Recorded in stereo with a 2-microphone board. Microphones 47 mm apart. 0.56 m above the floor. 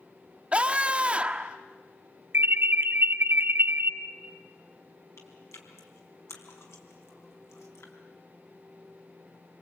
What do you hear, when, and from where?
0.5 s a scream: 25° right (ahead or behind), 1.0 m
2.3 s an alarm: 50° right (ahead or behind), 1.1 m
5.2 s chewing: 80° left, 4 m